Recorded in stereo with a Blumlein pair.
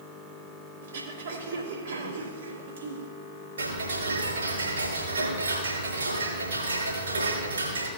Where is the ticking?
70° right, 4.5 m.